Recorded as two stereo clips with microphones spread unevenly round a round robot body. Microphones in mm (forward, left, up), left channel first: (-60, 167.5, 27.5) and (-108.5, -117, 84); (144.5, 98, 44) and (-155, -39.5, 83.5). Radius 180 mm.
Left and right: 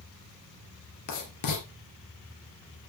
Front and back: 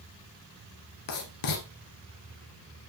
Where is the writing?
50° left, 2.5 m.